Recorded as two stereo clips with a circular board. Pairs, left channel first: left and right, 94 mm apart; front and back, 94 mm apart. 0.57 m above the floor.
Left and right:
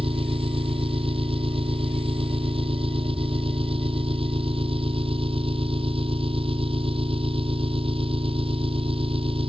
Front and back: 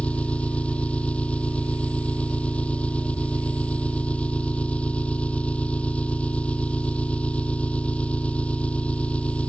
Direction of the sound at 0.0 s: 75° right.